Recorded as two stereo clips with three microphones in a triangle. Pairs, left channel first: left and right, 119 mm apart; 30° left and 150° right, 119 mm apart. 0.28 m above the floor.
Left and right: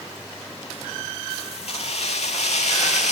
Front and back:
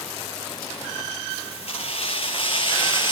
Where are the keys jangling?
60° left, 4.5 m; by 3.1 s 75° left, 4 m.